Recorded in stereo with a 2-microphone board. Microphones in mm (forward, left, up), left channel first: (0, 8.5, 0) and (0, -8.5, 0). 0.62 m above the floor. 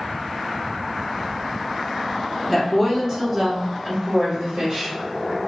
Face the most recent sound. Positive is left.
turn(degrees=-55)  # may be behind; listen again after turning